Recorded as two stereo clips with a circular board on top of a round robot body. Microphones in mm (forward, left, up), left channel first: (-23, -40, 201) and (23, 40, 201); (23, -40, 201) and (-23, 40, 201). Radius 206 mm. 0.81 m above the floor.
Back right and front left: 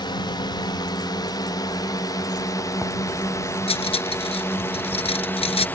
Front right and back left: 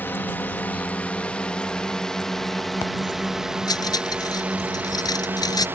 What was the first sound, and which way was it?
A drone, 125° right.